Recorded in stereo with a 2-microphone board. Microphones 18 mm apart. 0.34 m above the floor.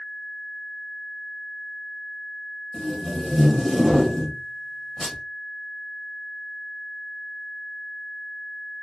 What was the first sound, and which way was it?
Tape being pulled, 15° left (ahead or behind).